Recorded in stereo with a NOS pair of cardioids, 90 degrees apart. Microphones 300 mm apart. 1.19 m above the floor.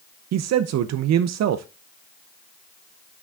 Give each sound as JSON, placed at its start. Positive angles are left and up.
{"t": 0.3, "sound": "a man speaking", "azimuth_deg": -60, "distance_m": 0.6}